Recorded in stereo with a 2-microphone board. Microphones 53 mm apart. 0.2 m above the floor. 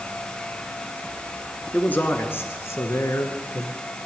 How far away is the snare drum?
I don't hear a snare drum.